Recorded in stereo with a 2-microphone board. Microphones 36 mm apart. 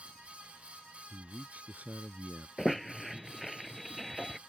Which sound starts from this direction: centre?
A squeak, at 2.6 s.